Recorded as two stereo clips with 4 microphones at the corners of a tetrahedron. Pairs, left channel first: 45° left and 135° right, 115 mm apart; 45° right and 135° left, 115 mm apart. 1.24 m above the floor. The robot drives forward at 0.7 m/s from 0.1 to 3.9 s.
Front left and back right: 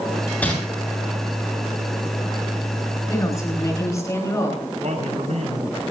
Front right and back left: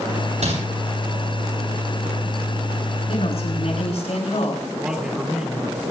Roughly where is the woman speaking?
Ahead.